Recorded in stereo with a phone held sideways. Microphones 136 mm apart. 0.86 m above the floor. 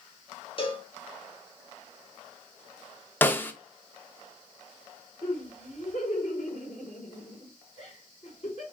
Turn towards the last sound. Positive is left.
turn(degrees=55)  # may be behind; listen again after turning